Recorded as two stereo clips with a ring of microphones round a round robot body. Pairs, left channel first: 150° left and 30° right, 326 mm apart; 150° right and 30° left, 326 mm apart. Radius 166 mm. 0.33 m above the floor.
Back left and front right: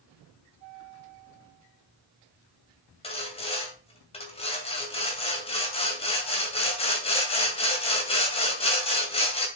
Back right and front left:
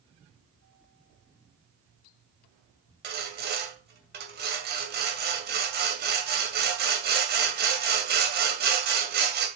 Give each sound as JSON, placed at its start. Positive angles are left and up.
{"t": 3.0, "sound": "sawing", "azimuth_deg": 80, "distance_m": 2.5}